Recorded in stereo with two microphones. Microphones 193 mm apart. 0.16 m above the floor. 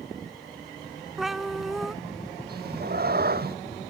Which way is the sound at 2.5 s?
55° right (ahead or behind).